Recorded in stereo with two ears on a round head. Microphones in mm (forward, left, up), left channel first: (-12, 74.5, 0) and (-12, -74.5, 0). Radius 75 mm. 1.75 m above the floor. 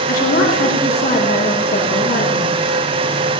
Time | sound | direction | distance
0.1 | a woman speaking | 65° left (ahead or behind) | 3.5 m